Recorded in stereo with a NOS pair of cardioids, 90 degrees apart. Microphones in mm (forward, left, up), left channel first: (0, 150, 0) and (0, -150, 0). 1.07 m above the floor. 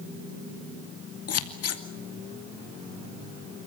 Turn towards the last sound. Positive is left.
turn(degrees=55)